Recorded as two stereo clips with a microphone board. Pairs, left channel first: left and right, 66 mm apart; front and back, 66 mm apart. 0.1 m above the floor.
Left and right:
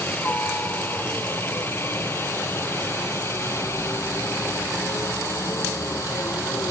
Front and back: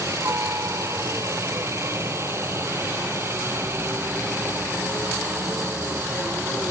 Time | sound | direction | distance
0.0 | a helicopter | 145° left | ?